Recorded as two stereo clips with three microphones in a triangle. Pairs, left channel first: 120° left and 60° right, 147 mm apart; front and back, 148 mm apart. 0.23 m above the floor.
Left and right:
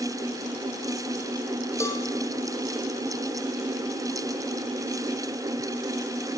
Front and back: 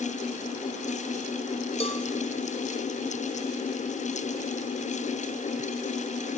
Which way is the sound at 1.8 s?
50° left.